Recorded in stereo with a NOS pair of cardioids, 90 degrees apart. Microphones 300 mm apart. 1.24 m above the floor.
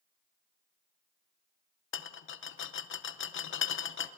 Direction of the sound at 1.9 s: 40° left.